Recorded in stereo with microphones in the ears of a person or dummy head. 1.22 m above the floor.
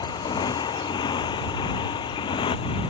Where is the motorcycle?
25° left (ahead or behind); by 2.9 s 30° left (ahead or behind).